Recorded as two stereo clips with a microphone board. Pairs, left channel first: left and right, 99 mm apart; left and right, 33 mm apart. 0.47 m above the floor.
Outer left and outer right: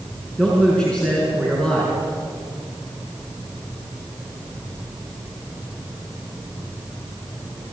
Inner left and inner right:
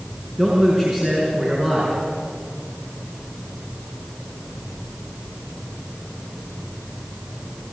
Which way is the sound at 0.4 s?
10° left (ahead or behind).